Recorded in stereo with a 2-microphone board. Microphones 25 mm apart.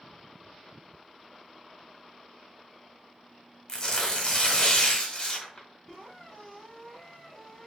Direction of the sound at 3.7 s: 20° left (ahead or behind).